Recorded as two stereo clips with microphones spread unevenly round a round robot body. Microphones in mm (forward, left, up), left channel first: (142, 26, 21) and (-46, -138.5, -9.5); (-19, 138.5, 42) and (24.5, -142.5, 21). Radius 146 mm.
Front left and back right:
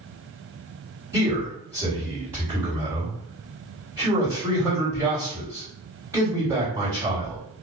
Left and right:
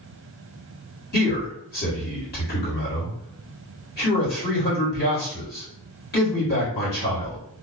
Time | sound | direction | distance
1.1 | a man speaking | 150° left | 2.0 m